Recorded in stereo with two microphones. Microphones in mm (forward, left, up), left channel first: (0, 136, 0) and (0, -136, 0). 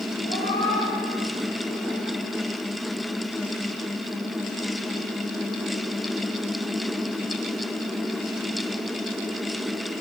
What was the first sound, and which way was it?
A cat meowing, 35° left (ahead or behind).